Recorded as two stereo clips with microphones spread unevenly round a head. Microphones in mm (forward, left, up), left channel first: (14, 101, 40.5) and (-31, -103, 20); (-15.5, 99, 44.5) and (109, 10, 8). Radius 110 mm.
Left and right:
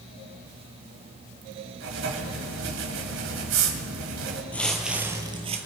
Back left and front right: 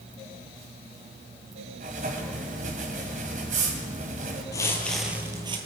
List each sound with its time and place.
1.8 s writing: 90° right, 1.6 m
4.5 s footsteps: 145° left, 1.6 m; by 5.6 s 85° right, 1.4 m